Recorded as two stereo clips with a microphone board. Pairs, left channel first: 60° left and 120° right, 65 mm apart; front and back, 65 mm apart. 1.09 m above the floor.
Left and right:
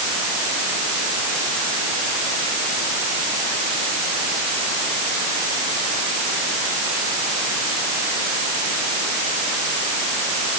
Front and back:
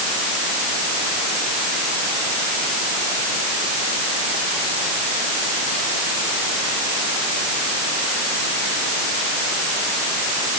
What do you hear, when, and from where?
Only background noise.